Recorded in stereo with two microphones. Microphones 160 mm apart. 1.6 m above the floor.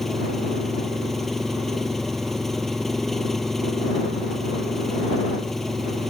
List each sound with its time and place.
0.0 s an engine running: centre (ahead or behind)